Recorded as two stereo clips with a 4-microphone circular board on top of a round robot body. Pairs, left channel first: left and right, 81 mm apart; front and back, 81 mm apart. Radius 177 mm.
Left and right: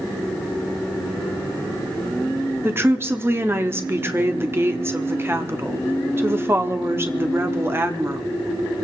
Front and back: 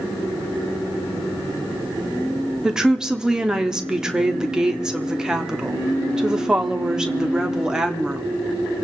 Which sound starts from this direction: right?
A woman speaking, at 2.6 s.